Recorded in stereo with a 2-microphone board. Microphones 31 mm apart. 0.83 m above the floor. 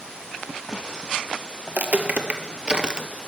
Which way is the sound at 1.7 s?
55° right (ahead or behind).